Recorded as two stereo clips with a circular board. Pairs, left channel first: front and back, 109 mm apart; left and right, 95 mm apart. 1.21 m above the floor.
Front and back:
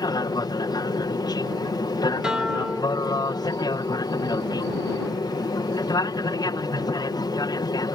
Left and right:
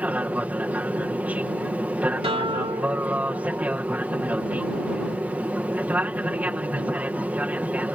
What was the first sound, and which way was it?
An aircraft, 25° right.